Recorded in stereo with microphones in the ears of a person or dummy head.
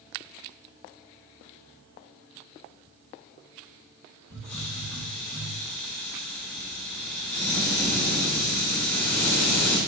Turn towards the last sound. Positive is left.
turn(degrees=15)  # may be behind; listen again after turning